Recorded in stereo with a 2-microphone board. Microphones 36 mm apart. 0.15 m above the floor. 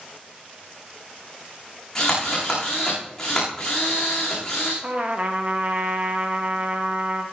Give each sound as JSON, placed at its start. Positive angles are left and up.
{"t": 1.9, "sound": "a drill", "side_deg": 20, "distance_m": 9.0}
{"t": 4.8, "sound": "a trumpet", "side_deg": -35, "distance_m": 3.0}